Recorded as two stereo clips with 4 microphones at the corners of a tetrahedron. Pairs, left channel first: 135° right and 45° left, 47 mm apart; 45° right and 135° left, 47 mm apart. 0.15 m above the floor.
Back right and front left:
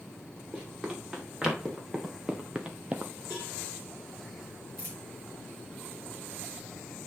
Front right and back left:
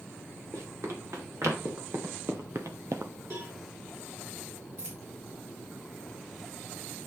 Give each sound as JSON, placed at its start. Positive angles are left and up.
{"t": 0.5, "sound": "running footsteps", "azimuth_deg": 120, "distance_m": 4.5}
{"t": 3.3, "sound": "a cowbell", "azimuth_deg": 115, "distance_m": 5.5}
{"t": 4.8, "sound": "a dropped coin", "azimuth_deg": 105, "distance_m": 3.5}